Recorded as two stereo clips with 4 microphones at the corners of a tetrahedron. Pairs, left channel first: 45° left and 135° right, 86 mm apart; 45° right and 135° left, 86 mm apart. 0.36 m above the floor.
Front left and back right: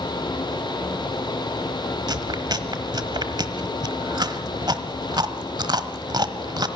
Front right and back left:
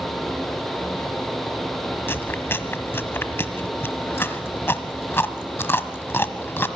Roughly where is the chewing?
Right.